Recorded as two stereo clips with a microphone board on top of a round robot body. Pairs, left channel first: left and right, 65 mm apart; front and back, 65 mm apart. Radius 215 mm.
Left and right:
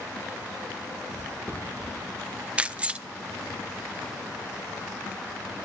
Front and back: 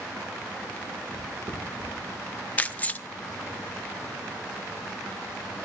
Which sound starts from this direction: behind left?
Footsteps, at 1.1 s.